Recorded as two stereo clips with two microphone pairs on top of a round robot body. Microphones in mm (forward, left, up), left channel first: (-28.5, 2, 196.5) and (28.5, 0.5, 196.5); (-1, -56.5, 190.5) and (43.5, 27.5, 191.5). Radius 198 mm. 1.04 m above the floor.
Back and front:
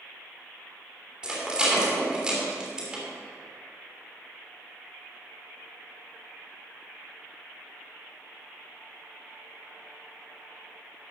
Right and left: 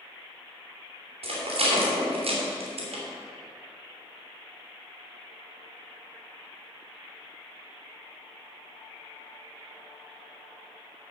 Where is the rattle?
75° left, 2.5 m.